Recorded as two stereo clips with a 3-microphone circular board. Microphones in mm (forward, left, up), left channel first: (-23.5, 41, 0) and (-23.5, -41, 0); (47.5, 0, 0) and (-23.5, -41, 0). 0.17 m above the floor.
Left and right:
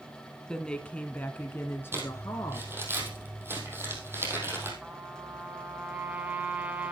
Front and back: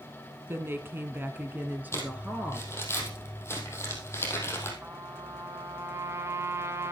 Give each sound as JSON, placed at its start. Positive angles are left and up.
{"t": 0.5, "sound": "a woman speaking", "azimuth_deg": 170, "distance_m": 1.6}
{"t": 1.9, "sound": "crumpling", "azimuth_deg": -30, "distance_m": 3.5}
{"t": 4.8, "sound": "a trumpet", "azimuth_deg": -150, "distance_m": 1.7}